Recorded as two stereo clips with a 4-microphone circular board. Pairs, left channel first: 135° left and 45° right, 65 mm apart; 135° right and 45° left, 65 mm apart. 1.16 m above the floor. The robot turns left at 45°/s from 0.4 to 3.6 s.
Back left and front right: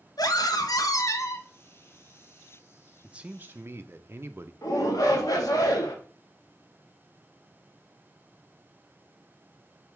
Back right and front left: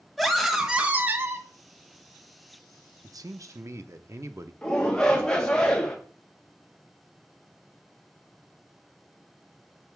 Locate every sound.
0.2 s a scream: 135° left, 1.1 m; by 1.5 s 90° left, 1.1 m
3.0 s a man speaking: 30° left, 0.6 m; by 4.5 s 5° left, 0.6 m
4.6 s a shout: 145° left, 1.8 m